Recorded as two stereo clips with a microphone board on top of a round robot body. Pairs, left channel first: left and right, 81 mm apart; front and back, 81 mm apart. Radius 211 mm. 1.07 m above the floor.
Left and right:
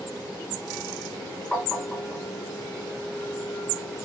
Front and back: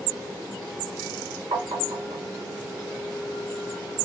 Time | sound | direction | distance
1.5 | tapping | 170° left | 2.0 m